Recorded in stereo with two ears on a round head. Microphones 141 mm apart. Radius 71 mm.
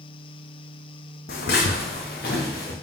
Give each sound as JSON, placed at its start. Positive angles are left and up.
{"t": 1.3, "sound": "footsteps", "side_deg": 65, "distance_m": 1.1}